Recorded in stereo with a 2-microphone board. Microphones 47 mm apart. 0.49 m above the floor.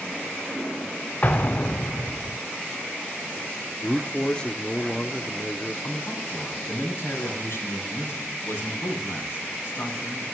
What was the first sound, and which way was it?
An explosion, 40° left (ahead or behind).